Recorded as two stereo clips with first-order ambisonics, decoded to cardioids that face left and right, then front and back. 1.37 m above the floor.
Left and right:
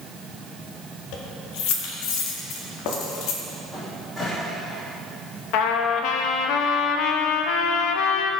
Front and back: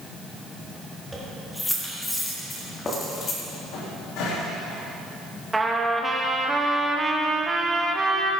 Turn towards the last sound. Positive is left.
turn(degrees=100)